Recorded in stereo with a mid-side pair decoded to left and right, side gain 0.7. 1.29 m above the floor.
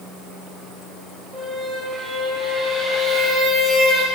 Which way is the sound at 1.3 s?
20° right.